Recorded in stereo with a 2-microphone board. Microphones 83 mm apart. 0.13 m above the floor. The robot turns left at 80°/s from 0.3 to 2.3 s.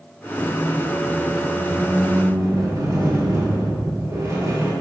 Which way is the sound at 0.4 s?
20° left.